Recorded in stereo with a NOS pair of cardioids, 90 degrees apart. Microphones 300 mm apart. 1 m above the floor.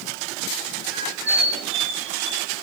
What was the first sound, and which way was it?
A squeak, 60° right.